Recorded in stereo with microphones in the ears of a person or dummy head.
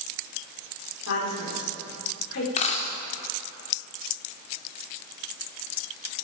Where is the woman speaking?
65° left (ahead or behind), 5.5 m.